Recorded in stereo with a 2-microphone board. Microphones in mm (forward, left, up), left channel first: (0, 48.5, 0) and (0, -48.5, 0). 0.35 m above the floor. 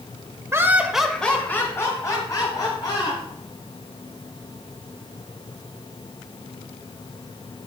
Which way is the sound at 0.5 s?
25° right (ahead or behind).